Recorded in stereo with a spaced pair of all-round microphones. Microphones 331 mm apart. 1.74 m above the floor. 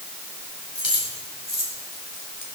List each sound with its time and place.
0.8 s keys jangling: 70° left (ahead or behind), 5 m; by 2.5 s 65° left (ahead or behind), 3.5 m